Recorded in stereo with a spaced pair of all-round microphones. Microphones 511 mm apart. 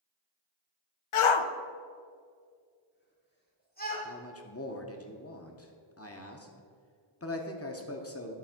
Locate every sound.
1.1 s a shout: 75° left (ahead or behind), 0.5 m; by 4.0 s 15° left (ahead or behind), 3 m
4.0 s a man speaking: 30° left (ahead or behind), 0.8 m